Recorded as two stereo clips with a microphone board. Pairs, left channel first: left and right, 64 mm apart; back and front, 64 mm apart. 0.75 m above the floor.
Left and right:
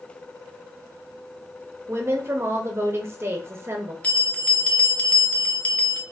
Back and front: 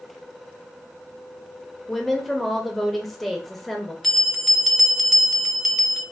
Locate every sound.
1.9 s a woman speaking: 90° right, 0.6 m
4.0 s a bell: 105° left, 0.5 m